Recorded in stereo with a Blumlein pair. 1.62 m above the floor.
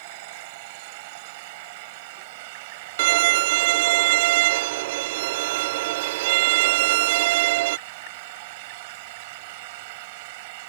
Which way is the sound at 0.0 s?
50° right.